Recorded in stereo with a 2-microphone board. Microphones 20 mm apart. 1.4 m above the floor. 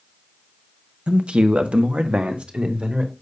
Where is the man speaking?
65° right (ahead or behind), 0.9 m; by 3.1 s 55° right (ahead or behind), 1.8 m.